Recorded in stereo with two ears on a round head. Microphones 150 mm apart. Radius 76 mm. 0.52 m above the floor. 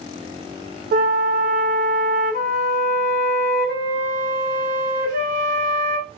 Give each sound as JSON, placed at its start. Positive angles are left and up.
{"t": 0.9, "sound": "a flute", "side_deg": -55, "distance_m": 1.5}